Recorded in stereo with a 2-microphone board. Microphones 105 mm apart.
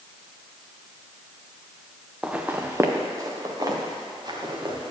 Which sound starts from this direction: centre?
Footsteps, at 2.2 s.